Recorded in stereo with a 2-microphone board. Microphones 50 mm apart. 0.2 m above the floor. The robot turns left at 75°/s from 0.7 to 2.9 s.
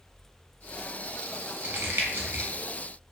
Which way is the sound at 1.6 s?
40° right (ahead or behind).